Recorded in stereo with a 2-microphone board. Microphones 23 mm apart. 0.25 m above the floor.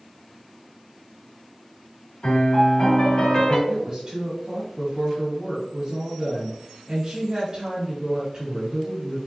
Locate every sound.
2.2 s a piano: 50° left (ahead or behind), 1.8 m
3.7 s a woman speaking: 40° right (ahead or behind), 1.2 m